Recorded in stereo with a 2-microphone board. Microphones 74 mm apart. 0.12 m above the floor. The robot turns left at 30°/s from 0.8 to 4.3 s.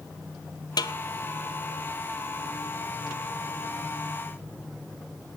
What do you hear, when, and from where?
0.8 s a snare drum: 70° left (ahead or behind), 0.7 m; by 0.9 s 65° left (ahead or behind), 0.7 m